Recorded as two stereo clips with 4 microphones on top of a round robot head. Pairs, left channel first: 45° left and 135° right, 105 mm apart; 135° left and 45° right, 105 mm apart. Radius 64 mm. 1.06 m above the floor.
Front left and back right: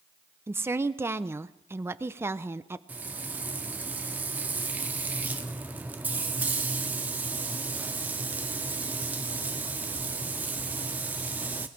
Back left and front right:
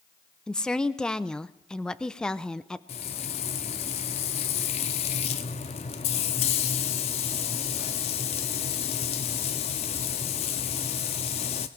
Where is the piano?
I don't hear a piano.